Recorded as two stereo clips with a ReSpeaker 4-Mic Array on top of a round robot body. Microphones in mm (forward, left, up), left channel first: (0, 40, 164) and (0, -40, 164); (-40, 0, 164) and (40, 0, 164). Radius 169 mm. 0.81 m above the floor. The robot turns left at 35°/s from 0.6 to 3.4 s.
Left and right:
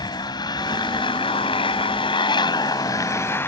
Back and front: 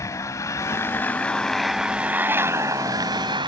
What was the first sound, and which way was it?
A motorcycle, 125° left.